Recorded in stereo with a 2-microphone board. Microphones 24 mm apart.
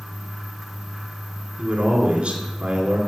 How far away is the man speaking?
About 2.5 m.